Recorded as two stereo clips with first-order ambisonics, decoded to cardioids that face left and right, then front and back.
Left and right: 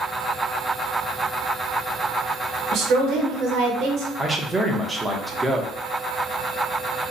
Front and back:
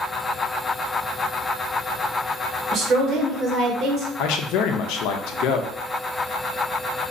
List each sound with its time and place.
2.7 s a woman speaking: 130° right, 1.2 m
4.2 s a man speaking: 10° right, 0.6 m